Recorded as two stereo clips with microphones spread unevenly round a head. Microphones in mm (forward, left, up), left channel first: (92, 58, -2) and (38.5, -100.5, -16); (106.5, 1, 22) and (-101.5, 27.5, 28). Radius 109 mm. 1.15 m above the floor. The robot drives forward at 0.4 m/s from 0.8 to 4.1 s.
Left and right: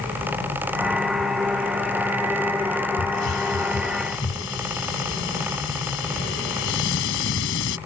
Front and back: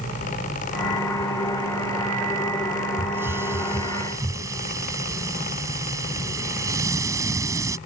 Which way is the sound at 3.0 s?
90° left.